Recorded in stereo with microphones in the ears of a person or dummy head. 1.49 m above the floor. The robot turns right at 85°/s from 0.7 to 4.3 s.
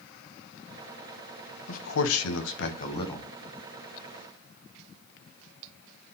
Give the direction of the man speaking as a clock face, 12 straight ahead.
11 o'clock.